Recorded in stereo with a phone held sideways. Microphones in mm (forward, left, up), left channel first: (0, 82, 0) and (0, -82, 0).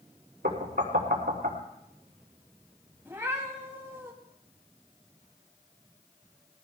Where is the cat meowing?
15° right (ahead or behind), 2.5 m.